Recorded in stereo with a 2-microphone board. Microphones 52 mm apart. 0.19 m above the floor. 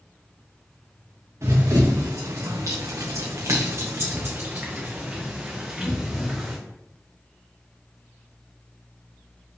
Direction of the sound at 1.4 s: 65° right (ahead or behind).